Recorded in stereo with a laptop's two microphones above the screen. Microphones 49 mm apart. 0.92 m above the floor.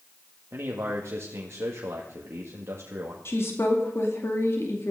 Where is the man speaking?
60° right (ahead or behind), 1.7 m.